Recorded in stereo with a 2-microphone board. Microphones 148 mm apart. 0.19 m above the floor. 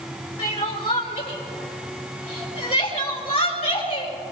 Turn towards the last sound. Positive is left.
turn(degrees=40)  # may be behind; listen again after turning